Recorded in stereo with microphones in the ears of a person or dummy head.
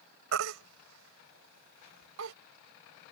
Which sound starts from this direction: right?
A baby crying, at 0.3 s.